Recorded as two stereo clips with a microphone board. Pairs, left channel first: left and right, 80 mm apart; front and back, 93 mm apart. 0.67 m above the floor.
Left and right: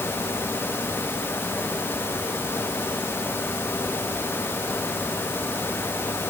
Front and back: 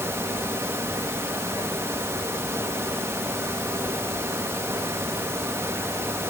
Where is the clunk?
No clunk in this recording.